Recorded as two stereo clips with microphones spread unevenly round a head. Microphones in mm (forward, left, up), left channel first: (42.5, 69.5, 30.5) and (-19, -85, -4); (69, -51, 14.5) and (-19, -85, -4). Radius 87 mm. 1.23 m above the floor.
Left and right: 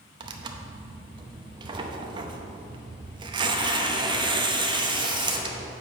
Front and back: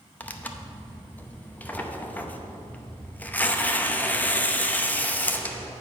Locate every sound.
0.2 s tearing paper: 45° right, 0.7 m